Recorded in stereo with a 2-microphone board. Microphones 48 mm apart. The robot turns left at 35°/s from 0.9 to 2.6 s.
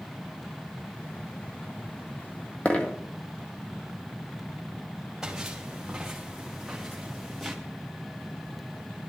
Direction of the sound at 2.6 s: 30° left (ahead or behind).